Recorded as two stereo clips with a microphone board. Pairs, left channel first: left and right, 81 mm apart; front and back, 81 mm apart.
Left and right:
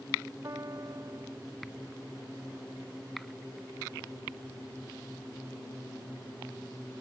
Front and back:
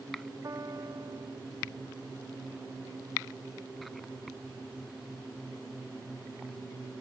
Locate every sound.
0.4 s a piano: 135° right